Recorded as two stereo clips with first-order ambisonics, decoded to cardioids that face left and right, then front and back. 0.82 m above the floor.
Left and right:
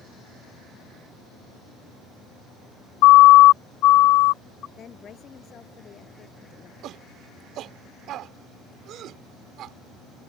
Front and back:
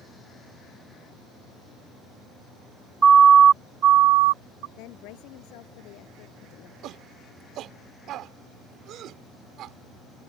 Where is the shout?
135° right.